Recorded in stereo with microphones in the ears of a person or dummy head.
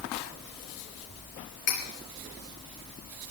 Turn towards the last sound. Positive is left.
turn(degrees=35)  # may be behind; listen again after turning